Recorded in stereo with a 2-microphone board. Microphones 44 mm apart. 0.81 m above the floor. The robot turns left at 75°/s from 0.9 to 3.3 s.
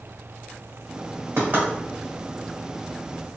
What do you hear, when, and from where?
1.4 s knocking: 60° right (ahead or behind), 1.2 m; by 1.7 s 40° right (ahead or behind), 1.2 m